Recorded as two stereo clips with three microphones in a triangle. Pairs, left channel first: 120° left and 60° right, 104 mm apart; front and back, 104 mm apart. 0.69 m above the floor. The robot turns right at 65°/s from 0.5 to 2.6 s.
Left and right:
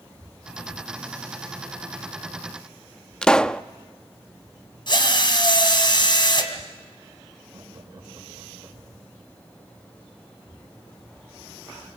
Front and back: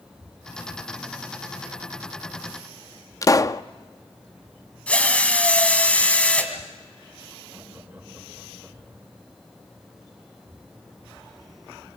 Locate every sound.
3.2 s a pop: 40° left, 0.5 m
4.9 s a drill: 80° left, 2.5 m
7.5 s laughter: 105° right, 4 m